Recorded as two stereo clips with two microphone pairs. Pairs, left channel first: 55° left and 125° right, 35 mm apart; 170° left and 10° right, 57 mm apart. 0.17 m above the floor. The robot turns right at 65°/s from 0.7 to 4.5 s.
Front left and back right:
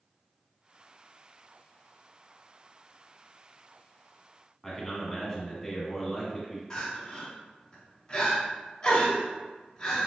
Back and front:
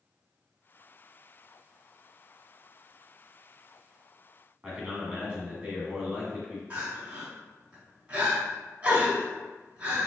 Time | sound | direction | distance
4.6 | a man speaking | 5° left | 1.0 m
6.7 | crying | 20° left | 1.1 m